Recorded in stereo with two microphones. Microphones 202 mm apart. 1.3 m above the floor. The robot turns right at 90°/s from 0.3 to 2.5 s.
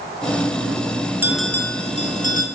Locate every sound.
1.2 s a bell: 15° right, 1.1 m; by 2.5 s 95° left, 1.1 m